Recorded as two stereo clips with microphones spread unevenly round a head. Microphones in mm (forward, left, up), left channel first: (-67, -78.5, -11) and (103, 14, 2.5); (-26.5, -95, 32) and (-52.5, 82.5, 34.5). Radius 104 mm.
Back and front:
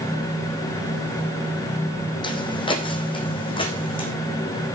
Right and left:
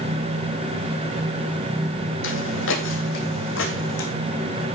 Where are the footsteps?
85° right, 2.5 m.